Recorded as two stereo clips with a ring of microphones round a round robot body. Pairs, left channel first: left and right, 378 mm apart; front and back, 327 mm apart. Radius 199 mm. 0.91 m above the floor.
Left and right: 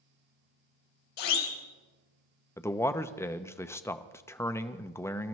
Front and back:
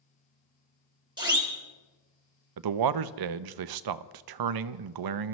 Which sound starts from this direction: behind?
A man speaking, at 2.6 s.